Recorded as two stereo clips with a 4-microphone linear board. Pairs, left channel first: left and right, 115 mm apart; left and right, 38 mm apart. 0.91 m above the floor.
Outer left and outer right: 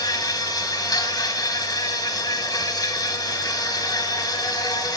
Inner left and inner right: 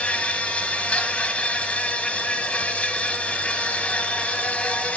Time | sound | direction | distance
0.0 | an insect | 30° left (ahead or behind) | 1.2 m